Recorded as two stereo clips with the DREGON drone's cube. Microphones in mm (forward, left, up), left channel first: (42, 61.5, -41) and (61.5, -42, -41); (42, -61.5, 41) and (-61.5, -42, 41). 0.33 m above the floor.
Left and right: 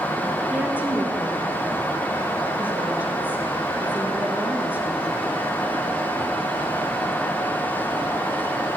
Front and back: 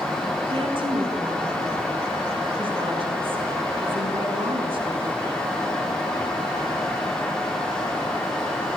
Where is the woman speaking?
155° right, 3.5 m.